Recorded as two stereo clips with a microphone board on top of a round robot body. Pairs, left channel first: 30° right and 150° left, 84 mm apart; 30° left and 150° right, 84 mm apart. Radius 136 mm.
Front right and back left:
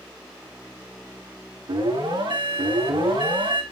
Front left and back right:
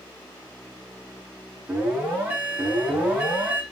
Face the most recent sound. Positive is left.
turn(degrees=140)